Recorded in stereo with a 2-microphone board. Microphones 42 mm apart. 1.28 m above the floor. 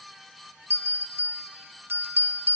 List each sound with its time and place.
0.7 s a bell: 60° right (ahead or behind), 1.2 m